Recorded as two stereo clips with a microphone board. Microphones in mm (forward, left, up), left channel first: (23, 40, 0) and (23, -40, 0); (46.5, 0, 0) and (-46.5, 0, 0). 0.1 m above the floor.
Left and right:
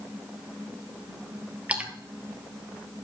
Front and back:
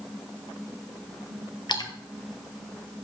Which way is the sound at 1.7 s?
20° right.